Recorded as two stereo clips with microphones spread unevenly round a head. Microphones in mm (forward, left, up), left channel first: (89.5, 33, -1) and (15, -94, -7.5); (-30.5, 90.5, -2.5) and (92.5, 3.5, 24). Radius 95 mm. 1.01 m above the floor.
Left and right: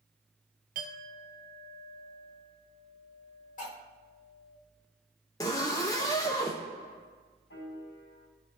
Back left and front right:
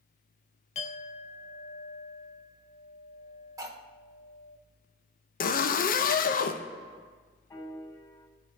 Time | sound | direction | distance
0.8 | a clink | 165° right | 0.6 m
3.6 | cutlery clinking | 30° left | 1.5 m
5.4 | a zipper | 130° left | 0.5 m
7.5 | a piano | 75° left | 3 m